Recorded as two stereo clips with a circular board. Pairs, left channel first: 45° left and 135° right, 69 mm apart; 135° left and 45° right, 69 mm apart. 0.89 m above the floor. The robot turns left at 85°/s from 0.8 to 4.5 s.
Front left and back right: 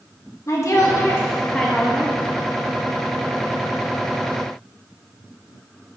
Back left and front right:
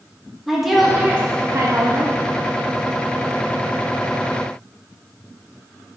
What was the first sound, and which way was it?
A woman speaking, 40° left.